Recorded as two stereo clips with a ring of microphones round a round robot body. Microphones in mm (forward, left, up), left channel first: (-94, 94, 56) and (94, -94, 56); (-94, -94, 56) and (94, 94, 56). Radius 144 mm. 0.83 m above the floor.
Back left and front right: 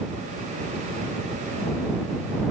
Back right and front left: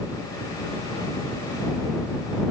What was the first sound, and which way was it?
Only background noise.